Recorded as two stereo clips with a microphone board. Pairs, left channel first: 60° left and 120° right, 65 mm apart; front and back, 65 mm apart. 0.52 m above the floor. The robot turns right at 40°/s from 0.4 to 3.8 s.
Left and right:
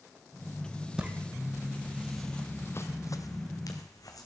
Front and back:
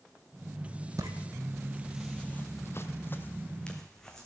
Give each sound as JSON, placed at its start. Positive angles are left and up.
{"t": 1.0, "sound": "footsteps", "azimuth_deg": 165, "distance_m": 0.9}